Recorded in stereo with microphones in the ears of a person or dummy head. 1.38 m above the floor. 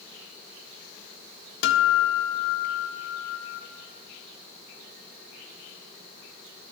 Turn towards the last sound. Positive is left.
turn(degrees=65)  # may be behind; listen again after turning